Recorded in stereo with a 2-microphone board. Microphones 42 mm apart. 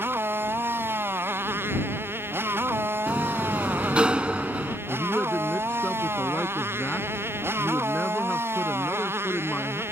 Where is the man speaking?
30° left (ahead or behind).